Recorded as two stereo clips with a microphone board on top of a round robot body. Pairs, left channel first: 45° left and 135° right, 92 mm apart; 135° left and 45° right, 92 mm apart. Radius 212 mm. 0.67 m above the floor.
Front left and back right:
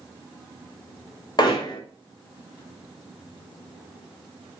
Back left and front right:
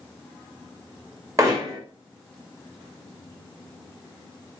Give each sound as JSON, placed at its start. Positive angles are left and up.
{"t": 1.4, "sound": "hammering", "azimuth_deg": 10, "distance_m": 1.7}